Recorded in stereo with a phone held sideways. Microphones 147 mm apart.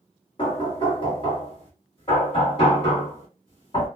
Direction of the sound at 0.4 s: 40° left (ahead or behind).